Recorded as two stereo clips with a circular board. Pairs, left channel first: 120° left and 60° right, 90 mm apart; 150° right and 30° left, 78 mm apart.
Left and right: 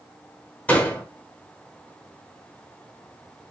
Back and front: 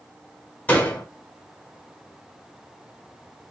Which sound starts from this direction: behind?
A door slam, at 0.7 s.